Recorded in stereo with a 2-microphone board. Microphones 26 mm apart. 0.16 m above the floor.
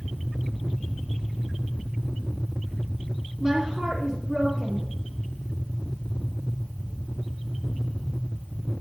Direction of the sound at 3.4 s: 35° right (ahead or behind).